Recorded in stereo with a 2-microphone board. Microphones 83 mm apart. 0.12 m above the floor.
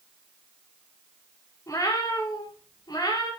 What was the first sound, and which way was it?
A cat meowing, 45° left (ahead or behind).